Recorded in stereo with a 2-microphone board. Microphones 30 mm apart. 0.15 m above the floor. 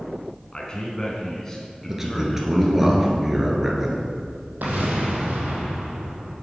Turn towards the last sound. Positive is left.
turn(degrees=-80)